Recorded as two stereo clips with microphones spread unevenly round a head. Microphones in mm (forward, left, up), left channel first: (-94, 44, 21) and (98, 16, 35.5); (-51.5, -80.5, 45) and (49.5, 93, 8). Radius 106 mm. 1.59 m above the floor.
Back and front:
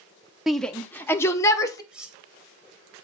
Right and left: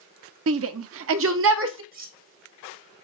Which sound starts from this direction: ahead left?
Cutlery clinking, at 1.9 s.